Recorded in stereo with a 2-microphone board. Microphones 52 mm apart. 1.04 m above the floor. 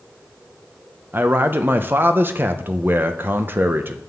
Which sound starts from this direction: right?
A man speaking, at 1.1 s.